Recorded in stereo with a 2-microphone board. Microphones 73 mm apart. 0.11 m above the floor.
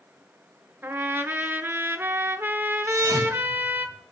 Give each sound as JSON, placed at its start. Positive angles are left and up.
{"t": 0.8, "sound": "a trumpet", "side_deg": -30, "distance_m": 0.7}
{"t": 2.9, "sound": "a thud", "side_deg": -45, "distance_m": 7.5}